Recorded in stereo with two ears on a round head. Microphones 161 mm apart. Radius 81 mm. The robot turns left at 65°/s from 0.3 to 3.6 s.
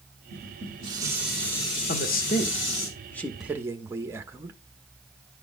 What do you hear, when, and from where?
0.3 s dishes clattering: 115° right, 3.5 m; by 2.9 s 80° left, 3.5 m
1.9 s a man speaking: 95° left, 0.9 m; by 4.6 s 15° right, 0.9 m